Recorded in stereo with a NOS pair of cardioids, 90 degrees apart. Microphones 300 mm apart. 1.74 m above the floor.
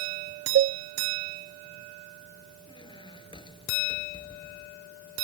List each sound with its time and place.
0.6 s a cowbell: 45° right
2.7 s a squeak: 15° left